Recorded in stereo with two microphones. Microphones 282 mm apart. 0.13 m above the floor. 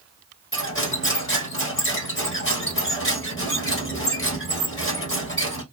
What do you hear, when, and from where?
0.5 s cutlery clinking: 45° left (ahead or behind), 1.4 m